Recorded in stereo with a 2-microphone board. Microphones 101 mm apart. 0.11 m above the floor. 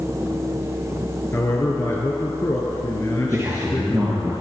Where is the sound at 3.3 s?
30° right (ahead or behind), 2.5 m.